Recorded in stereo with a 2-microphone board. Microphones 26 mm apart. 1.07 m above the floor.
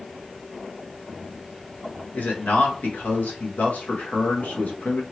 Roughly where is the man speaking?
Left.